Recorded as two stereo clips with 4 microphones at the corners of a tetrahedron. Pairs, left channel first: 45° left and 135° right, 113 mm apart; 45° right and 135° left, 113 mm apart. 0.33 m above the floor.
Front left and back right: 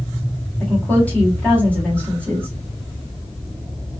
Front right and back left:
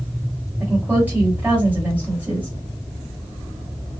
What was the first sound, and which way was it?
A woman speaking, 95° left.